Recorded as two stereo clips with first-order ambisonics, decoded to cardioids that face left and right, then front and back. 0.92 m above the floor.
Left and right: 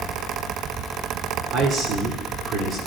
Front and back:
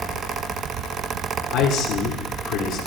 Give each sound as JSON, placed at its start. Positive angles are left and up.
{"t": 1.5, "sound": "a man speaking", "azimuth_deg": -40, "distance_m": 2.5}